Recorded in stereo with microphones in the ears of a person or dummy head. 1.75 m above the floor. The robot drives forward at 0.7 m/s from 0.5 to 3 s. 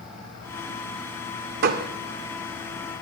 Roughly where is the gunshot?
Right.